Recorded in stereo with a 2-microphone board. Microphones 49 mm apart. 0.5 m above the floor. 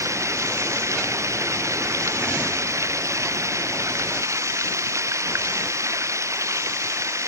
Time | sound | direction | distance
0.0 | running water | 85° right | ?